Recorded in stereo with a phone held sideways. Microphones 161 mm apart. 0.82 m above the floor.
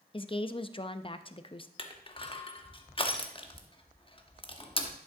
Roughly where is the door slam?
I don't hear a door slam.